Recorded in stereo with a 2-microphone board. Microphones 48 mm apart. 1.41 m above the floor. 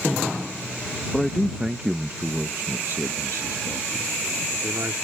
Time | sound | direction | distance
1.1 | a man speaking | 10° left (ahead or behind) | ?